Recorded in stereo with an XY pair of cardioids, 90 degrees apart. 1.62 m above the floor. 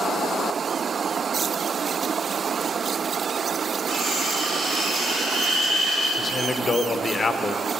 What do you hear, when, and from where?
3.9 s cutlery clinking: 60° right, 4.5 m
6.2 s a man speaking: 30° left, 1.2 m